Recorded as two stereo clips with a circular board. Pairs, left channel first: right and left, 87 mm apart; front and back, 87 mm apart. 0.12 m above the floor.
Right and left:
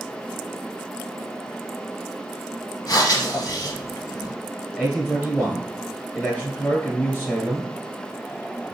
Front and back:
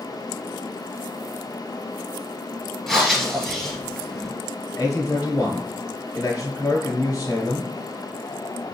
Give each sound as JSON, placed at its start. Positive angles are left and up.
{"t": 2.9, "sound": "breathing", "azimuth_deg": -85, "distance_m": 1.8}
{"t": 4.7, "sound": "a man speaking", "azimuth_deg": -30, "distance_m": 1.4}